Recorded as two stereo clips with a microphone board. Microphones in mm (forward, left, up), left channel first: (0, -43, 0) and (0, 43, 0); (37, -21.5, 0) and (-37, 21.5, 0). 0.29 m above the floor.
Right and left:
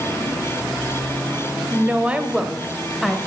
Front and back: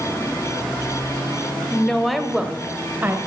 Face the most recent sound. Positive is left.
turn(degrees=-170)